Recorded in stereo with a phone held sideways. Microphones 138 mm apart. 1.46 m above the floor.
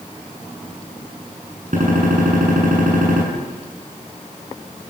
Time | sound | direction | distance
1.7 | a gunshot | 75° right (ahead or behind) | 8 m